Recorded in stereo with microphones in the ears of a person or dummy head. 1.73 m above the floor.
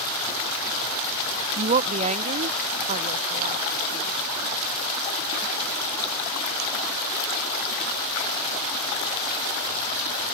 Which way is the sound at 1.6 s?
30° right (ahead or behind).